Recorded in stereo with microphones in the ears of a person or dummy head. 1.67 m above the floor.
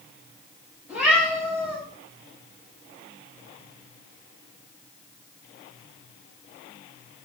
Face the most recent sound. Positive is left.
turn(degrees=-5)  # may be behind; listen again after turning